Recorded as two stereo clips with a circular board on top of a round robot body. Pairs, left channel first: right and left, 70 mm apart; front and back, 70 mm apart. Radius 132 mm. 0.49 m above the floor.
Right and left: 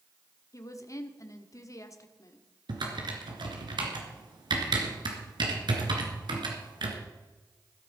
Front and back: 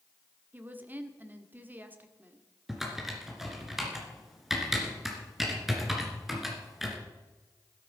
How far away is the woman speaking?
About 1.6 m.